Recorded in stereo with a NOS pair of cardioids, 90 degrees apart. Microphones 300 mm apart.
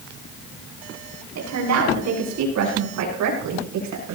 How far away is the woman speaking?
About 9.5 m.